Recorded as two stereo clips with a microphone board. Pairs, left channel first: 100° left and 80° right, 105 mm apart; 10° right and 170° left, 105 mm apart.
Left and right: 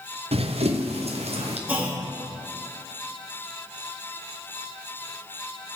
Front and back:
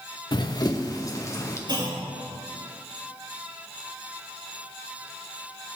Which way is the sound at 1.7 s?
150° right.